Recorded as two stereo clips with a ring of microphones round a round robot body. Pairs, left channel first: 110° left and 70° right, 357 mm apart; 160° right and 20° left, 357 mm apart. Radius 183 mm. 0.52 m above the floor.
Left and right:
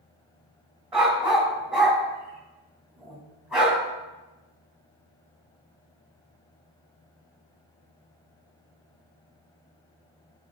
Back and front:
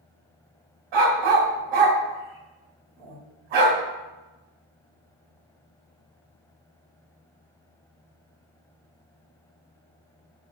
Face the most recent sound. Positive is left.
turn(degrees=20)